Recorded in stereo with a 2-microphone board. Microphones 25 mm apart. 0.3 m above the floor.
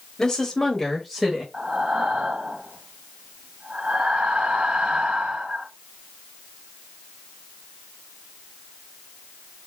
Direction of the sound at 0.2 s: 25° left (ahead or behind).